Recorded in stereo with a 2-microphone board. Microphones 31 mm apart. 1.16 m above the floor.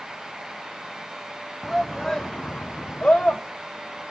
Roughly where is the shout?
Centre.